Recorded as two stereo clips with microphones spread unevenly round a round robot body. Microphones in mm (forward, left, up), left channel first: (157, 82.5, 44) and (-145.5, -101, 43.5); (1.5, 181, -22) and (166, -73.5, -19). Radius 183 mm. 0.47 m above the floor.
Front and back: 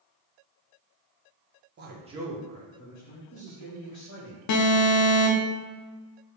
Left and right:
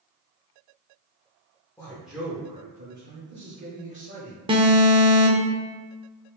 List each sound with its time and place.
1.8 s a man speaking: 165° right, 0.8 m; by 4.4 s 5° right, 1.7 m
4.5 s an alarm: 15° left, 0.6 m